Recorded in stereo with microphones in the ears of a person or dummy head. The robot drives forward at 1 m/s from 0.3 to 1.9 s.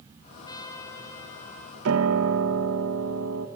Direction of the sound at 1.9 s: 75° right (ahead or behind).